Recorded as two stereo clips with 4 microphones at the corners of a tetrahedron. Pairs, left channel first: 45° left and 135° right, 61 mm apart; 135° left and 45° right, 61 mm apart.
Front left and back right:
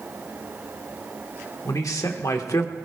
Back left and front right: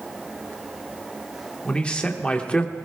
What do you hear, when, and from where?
1.6 s a man speaking: 65° left, 1.5 m